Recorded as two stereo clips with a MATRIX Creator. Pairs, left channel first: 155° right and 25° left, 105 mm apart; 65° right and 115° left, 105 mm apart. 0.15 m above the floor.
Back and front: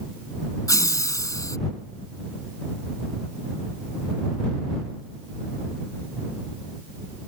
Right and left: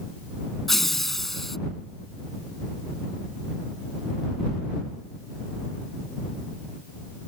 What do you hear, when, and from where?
0.7 s laughter: 155° right